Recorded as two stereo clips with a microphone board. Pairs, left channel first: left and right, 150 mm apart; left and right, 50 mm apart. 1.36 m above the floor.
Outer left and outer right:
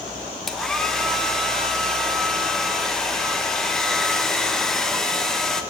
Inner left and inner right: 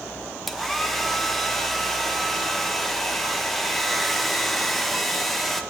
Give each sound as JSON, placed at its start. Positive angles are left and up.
{"t": 0.5, "sound": "a hair dryer", "side_deg": 5, "distance_m": 1.5}